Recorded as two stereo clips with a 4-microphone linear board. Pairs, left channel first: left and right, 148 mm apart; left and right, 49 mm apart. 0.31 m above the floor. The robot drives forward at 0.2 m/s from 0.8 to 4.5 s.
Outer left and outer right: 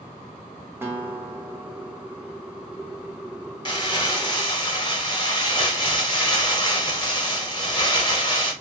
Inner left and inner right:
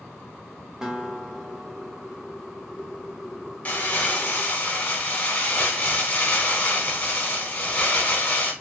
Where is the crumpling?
30° left (ahead or behind), 0.7 m.